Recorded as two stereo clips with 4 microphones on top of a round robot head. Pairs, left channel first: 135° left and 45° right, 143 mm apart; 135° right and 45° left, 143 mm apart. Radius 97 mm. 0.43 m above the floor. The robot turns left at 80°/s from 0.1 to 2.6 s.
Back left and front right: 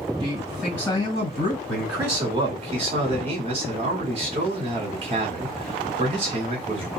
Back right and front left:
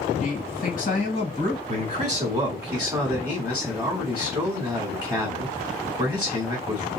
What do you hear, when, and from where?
0.2 s a man speaking: 105° right, 2.0 m; by 1.6 s 145° left, 2.0 m
1.7 s a man speaking: 50° left, 1.7 m; by 6.9 s 25° right, 1.7 m